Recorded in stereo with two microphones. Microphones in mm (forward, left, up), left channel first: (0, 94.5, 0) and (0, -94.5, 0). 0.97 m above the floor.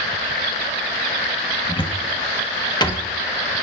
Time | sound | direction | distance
1.7 | a cupboard door | 20° left (ahead or behind) | 0.9 m